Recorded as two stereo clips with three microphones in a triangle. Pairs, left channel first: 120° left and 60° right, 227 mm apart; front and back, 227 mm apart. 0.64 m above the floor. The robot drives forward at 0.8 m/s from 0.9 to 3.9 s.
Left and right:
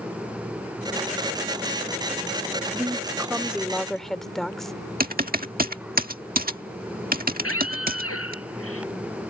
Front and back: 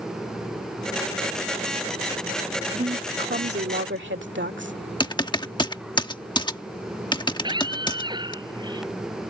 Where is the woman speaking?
125° right; by 4.8 s 150° right.